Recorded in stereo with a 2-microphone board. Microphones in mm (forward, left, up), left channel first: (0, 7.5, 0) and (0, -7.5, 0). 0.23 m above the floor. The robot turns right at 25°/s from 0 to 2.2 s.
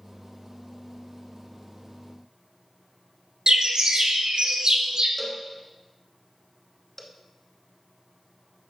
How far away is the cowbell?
About 0.6 m.